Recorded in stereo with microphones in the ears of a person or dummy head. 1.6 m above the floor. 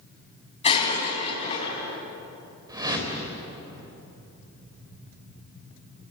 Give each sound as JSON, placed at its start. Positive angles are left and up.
{"t": 0.6, "sound": "breaking glass", "side_deg": 35, "distance_m": 5.5}
{"t": 2.7, "sound": "a whoosh", "side_deg": -20, "distance_m": 4.0}